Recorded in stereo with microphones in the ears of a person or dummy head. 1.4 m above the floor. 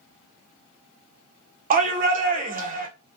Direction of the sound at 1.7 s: 40° right (ahead or behind).